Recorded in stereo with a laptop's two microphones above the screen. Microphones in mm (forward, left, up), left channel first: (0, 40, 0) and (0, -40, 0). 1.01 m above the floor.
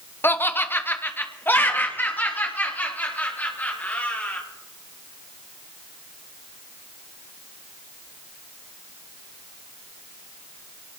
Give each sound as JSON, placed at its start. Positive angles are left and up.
{"t": 0.2, "sound": "laughter", "side_deg": 25, "distance_m": 0.7}